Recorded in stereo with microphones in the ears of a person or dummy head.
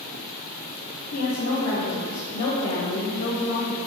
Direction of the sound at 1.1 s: 55° left (ahead or behind).